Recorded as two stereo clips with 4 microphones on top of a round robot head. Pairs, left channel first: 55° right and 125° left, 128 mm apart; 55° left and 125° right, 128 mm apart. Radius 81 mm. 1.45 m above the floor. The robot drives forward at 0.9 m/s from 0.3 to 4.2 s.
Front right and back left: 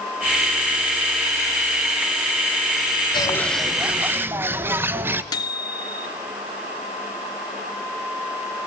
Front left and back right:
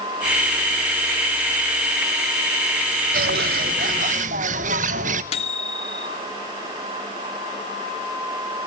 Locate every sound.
3.1 s a bird: 110° right, 0.5 m; by 5.2 s 160° right, 1.2 m
5.3 s a microwave: 10° left, 1.8 m